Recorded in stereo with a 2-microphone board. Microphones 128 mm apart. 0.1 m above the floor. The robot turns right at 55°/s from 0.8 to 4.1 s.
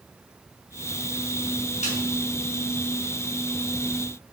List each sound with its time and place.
1.8 s a snare drum: 70° left (ahead or behind), 5.5 m; by 2.0 s 60° left (ahead or behind), 5.5 m